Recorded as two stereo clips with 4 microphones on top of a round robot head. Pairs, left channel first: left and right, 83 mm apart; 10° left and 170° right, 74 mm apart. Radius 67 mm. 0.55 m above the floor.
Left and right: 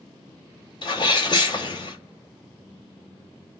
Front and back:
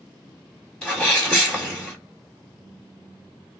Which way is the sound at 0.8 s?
90° left.